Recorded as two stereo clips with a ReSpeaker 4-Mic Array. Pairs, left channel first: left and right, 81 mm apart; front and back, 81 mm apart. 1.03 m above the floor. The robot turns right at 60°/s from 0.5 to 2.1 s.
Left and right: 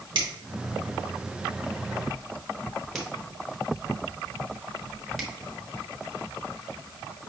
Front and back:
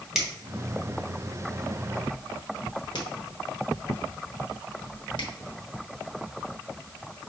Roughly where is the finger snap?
Right.